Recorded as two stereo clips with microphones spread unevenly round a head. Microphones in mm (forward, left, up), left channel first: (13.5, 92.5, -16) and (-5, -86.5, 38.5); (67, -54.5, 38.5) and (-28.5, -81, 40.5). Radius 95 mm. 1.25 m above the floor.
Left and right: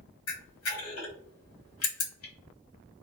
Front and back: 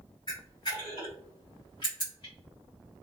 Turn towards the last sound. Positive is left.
turn(degrees=80)